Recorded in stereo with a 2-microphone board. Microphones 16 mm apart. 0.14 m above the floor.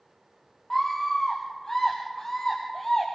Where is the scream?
20° left (ahead or behind), 3.5 m; by 3.1 s 40° left (ahead or behind), 4 m.